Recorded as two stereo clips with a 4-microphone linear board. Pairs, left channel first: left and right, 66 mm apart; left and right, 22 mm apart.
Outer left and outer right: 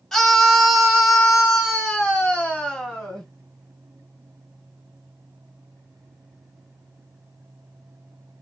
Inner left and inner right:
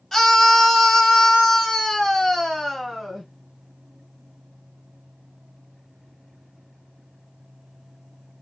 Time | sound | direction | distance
0.1 | a scream | 5° left (ahead or behind) | 1.0 m